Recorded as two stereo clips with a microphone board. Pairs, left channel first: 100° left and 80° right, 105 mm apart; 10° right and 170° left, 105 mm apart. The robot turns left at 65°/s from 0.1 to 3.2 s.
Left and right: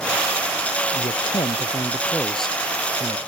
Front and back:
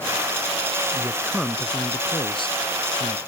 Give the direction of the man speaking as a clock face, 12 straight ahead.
8 o'clock.